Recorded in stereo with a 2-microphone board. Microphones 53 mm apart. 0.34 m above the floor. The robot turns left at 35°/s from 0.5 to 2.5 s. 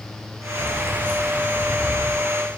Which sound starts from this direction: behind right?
Keys jangling, at 0.6 s.